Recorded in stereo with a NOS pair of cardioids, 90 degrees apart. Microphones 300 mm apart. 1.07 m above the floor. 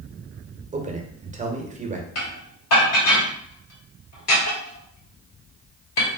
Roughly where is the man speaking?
Ahead right.